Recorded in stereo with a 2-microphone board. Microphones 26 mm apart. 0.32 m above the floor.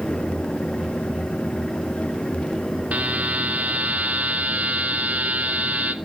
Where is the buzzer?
70° right (ahead or behind), 2 m.